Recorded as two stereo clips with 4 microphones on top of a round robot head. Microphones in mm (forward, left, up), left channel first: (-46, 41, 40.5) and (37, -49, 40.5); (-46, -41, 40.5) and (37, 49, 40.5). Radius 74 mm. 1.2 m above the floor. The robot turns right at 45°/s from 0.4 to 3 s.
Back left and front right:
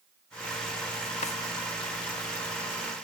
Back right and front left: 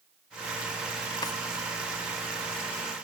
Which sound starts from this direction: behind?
A drawer, at 1.2 s.